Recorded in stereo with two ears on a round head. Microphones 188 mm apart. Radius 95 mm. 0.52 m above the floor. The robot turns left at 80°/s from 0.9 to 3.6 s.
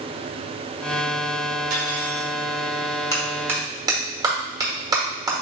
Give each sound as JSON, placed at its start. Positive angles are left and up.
{"t": 1.7, "sound": "cutlery clinking", "azimuth_deg": -110, "distance_m": 1.9}
{"t": 3.1, "sound": "a clap", "side_deg": 15, "distance_m": 1.0}